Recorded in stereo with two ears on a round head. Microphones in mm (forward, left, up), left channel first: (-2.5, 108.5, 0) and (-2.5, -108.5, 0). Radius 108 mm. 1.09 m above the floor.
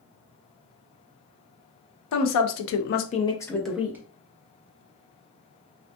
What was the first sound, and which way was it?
A woman speaking, 75° left (ahead or behind).